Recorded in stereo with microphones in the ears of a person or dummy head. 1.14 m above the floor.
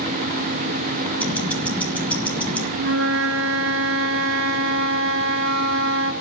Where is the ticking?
Centre (ahead or behind), 1.4 m.